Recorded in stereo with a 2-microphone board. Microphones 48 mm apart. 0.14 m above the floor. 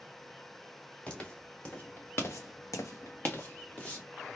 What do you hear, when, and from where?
1.1 s footsteps: 25° left (ahead or behind), 1.9 m; by 4.0 s 20° left (ahead or behind), 1.7 m